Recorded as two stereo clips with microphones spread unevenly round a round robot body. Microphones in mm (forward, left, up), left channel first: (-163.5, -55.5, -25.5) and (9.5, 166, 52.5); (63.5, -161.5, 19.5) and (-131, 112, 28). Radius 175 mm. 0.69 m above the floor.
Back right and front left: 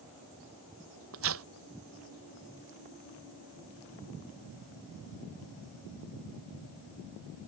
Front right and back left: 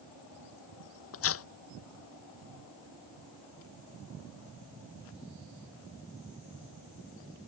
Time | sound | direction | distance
1.1 | tearing paper | straight ahead | ?